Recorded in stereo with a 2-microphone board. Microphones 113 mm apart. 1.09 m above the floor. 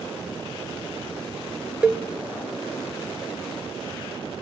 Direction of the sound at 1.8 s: 10° right (ahead or behind).